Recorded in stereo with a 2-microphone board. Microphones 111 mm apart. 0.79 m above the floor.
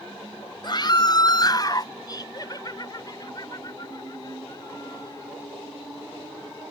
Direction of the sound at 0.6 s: 45° left (ahead or behind).